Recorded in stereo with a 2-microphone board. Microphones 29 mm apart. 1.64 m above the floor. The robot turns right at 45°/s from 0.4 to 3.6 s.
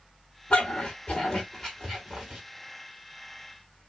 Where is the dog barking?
60° left (ahead or behind), 3.5 m; by 2.4 s 15° right (ahead or behind), 3.5 m.